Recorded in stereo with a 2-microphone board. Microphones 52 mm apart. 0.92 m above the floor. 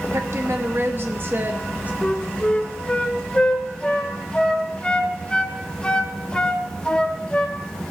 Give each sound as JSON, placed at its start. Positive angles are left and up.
{"t": 0.1, "sound": "a woman speaking", "side_deg": -65, "distance_m": 1.4}
{"t": 2.0, "sound": "a flute", "side_deg": 20, "distance_m": 0.8}